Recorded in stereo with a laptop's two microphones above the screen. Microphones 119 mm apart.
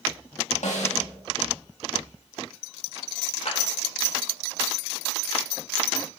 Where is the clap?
65° left (ahead or behind), 3.5 m.